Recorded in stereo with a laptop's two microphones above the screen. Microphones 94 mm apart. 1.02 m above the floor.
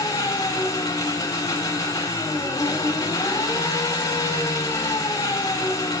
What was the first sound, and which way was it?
An engine running, 35° left (ahead or behind).